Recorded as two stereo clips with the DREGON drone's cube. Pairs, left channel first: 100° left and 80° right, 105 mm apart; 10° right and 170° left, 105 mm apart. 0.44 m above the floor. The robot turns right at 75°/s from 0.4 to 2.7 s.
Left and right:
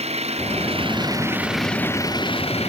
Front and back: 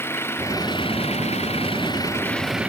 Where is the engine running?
80° right; by 2.7 s 95° left.